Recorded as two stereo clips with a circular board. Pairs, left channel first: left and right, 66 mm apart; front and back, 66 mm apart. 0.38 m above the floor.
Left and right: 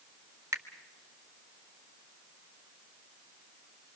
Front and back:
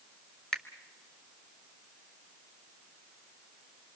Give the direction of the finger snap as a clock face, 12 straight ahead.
3 o'clock.